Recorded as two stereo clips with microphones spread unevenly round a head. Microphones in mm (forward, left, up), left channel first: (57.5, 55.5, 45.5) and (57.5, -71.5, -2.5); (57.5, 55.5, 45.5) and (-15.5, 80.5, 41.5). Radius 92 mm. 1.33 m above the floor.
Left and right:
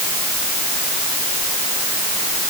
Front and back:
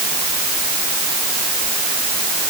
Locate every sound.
Only background noise.